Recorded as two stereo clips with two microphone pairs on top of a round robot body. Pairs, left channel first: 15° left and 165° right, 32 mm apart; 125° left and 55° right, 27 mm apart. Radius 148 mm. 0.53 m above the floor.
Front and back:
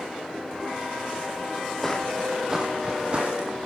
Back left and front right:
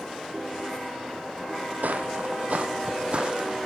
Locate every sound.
1.8 s footsteps: 75° right, 0.9 m; by 3.7 s 120° right, 1.4 m